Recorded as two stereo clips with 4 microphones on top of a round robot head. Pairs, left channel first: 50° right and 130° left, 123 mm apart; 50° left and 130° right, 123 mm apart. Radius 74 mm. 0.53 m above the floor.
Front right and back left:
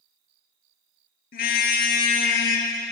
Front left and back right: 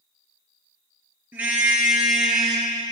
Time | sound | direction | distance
1.3 | a car horn | 55° right | 5.5 m